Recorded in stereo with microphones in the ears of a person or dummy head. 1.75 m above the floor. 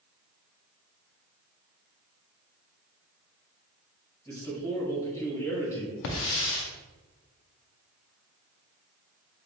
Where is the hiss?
65° left (ahead or behind), 0.6 m.